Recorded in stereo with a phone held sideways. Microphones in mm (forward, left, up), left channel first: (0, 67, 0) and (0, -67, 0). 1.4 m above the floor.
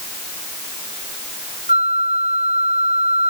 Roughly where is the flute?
Right.